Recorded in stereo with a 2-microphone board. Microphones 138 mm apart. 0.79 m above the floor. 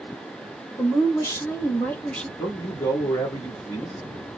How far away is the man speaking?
About 1.2 m.